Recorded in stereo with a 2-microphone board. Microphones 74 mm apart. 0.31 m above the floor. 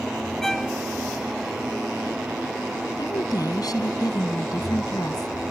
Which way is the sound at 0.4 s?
5° left (ahead or behind).